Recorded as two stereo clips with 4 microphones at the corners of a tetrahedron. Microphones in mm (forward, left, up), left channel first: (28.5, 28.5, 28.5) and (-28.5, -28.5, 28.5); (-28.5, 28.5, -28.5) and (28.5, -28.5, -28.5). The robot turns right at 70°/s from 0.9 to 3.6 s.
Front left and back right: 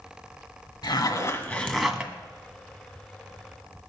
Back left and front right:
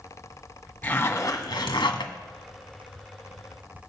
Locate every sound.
0.8 s a zipper: 65° left, 1.5 m; by 2.1 s 150° left, 1.5 m